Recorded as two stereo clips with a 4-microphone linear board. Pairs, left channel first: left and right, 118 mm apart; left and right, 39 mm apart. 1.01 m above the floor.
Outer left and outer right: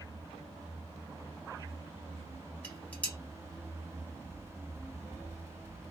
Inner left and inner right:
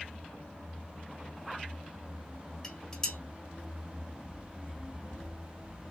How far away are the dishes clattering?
About 1.2 m.